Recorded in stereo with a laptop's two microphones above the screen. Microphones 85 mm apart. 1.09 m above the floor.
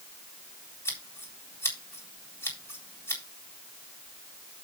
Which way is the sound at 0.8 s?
30° left (ahead or behind).